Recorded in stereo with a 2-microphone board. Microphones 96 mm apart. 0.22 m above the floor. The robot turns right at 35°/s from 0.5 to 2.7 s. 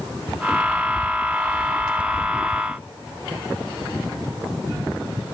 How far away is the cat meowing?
No cat meowing in this recording.